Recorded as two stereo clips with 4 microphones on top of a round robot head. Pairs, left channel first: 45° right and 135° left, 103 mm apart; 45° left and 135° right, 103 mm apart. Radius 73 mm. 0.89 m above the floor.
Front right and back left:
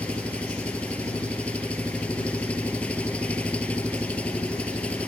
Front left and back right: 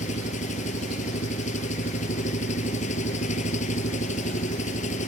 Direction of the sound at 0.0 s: 35° left.